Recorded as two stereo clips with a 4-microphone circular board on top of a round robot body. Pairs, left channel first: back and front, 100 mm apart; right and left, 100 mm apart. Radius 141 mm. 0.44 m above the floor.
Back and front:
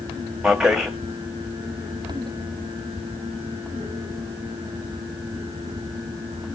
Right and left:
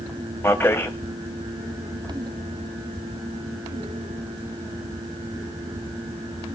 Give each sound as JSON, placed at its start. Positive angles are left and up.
{"t": 0.4, "sound": "a man speaking", "azimuth_deg": -75, "distance_m": 1.4}